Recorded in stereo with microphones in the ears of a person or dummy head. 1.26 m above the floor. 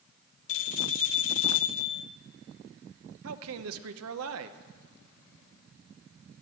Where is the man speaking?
70° right (ahead or behind), 0.8 m.